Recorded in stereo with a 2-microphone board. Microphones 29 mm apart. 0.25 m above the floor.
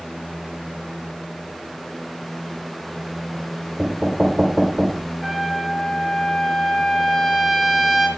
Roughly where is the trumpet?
Centre.